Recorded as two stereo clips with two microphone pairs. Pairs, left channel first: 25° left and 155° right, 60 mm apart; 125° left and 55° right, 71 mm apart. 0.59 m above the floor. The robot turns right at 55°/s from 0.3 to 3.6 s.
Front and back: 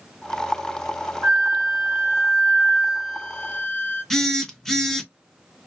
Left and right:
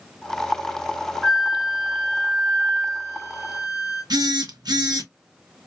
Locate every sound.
1.2 s a flute: 145° right, 1.9 m; by 4.0 s 15° right, 1.9 m
4.1 s a phone buzzing: 65° right, 0.6 m